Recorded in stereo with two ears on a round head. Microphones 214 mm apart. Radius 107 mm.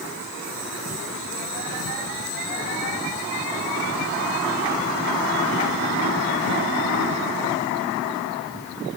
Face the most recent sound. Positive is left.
No sound to turn to.